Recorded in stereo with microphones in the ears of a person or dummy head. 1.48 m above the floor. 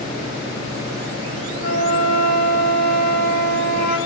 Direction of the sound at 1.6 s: 60° left (ahead or behind).